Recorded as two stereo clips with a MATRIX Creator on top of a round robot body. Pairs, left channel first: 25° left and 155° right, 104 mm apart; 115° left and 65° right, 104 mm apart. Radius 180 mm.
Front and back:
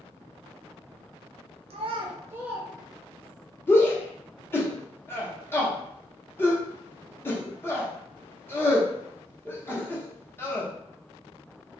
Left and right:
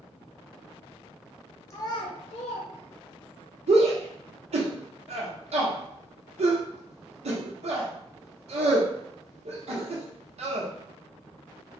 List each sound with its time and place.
1.7 s a child speaking: straight behind, 0.7 m; by 3.4 s 95° left, 1.3 m
3.7 s a shout: 45° right, 1.0 m